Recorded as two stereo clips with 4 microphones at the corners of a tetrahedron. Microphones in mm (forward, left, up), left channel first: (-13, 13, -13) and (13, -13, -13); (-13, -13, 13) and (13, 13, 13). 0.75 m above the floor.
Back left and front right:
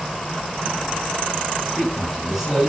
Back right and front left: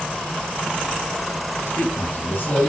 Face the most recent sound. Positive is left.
turn(degrees=-130)